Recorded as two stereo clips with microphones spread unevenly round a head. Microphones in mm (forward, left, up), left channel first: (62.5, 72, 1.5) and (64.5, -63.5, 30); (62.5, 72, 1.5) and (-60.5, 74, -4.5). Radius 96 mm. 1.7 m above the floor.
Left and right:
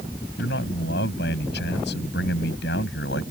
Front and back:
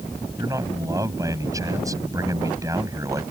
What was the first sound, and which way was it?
A man speaking, 115° left.